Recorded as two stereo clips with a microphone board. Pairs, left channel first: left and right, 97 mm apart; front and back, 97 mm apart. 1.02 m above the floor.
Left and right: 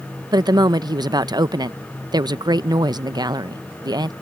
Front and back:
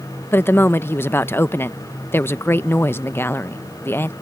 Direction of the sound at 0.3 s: 60° right.